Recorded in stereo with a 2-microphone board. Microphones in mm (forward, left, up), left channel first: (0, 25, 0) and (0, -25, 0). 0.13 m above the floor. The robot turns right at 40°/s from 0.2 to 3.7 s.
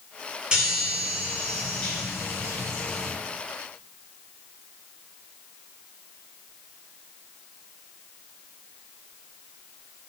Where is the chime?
25° right, 1.5 m; by 3.1 s 75° left, 1.5 m.